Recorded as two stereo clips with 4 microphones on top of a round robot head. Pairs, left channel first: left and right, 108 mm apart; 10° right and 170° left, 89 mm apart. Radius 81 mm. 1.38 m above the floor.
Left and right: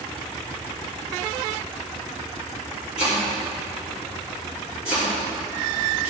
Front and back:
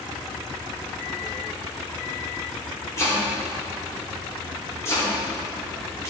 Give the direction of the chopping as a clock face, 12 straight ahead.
10 o'clock.